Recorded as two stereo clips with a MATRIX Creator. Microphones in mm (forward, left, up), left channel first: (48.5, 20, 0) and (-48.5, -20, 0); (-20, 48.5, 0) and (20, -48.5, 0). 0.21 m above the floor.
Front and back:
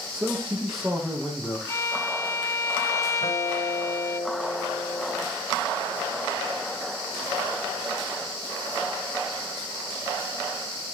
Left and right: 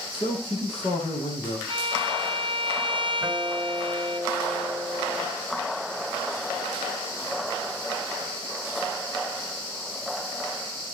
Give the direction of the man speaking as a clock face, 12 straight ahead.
8 o'clock.